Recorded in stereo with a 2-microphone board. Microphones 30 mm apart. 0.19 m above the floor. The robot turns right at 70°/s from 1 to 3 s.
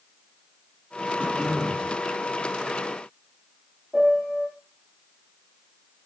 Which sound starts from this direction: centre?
A piano, at 3.9 s.